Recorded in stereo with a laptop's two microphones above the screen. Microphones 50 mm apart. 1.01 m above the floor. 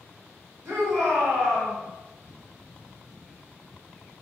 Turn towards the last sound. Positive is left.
turn(degrees=-70)  # may be behind; listen again after turning